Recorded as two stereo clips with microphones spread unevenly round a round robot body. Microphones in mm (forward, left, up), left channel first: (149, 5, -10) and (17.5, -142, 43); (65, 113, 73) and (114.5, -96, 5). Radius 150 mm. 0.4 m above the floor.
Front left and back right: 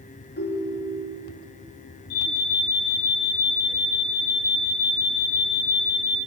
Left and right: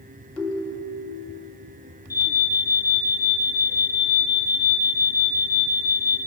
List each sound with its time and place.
0.4 s a ringtone: 15° left, 4.5 m
2.1 s an alarm: 15° left, 5.5 m